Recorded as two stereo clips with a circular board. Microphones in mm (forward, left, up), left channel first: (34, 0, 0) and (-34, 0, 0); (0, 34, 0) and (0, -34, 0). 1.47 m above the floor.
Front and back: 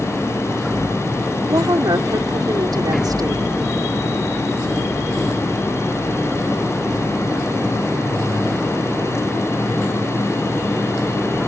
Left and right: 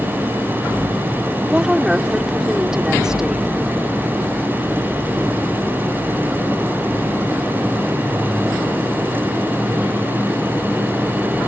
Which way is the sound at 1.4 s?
170° right.